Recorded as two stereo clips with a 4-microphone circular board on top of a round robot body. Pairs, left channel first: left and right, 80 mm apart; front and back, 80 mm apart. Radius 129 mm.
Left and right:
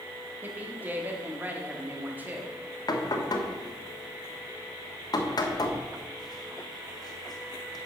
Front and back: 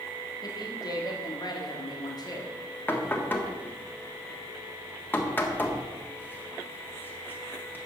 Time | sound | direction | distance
0.4 | a woman speaking | 25° right | 1.5 m
2.9 | knocking | 65° left | 1.5 m